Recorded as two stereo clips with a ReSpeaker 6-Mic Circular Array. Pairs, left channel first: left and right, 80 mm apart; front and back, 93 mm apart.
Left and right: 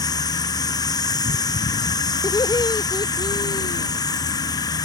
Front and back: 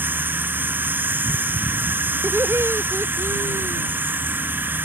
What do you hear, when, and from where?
0.0 s an insect: 115° left
2.2 s laughter: 120° left